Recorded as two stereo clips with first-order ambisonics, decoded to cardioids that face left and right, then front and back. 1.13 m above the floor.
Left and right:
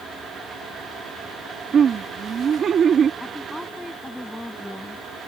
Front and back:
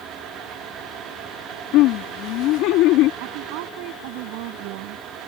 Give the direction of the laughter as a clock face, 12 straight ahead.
1 o'clock.